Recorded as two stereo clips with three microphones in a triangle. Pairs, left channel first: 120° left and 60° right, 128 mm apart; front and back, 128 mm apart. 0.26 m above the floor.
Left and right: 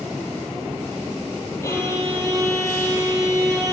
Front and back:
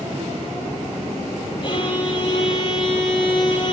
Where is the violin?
50° left, 3.5 m.